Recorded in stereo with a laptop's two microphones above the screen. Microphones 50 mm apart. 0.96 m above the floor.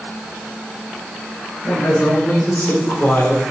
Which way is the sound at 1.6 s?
55° left (ahead or behind).